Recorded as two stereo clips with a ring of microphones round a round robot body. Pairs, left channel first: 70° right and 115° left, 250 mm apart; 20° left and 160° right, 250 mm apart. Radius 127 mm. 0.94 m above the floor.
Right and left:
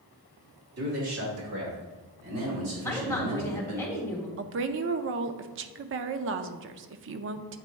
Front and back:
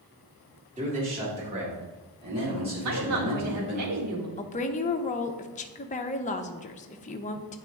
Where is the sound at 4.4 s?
80° left, 0.5 m.